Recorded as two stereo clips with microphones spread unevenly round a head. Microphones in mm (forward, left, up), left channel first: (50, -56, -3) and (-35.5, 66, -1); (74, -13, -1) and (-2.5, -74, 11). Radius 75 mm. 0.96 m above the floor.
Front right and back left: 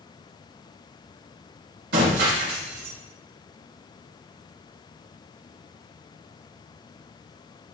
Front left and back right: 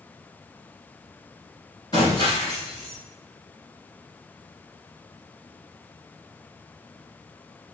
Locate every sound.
1.9 s breaking glass: 105° left, 3 m